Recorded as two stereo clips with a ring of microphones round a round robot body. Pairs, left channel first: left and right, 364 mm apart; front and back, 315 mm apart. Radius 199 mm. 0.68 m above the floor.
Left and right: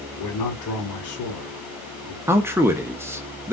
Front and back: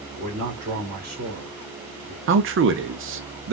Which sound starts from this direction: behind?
A man speaking, at 2.3 s.